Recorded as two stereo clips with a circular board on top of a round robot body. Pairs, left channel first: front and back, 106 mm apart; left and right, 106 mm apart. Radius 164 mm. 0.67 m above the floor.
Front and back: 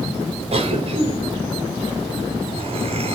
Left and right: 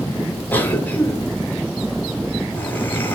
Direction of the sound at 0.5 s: 165° left.